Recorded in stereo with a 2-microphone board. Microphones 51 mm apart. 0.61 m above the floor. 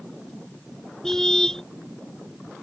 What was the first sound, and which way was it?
A car horn, 10° left (ahead or behind).